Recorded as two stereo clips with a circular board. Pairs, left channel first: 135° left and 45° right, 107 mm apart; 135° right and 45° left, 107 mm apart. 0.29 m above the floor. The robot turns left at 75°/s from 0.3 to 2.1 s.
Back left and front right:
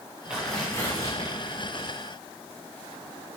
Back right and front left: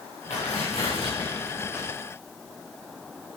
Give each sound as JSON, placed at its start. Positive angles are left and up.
{"t": 0.3, "sound": "tearing paper", "azimuth_deg": -125, "distance_m": 6.5}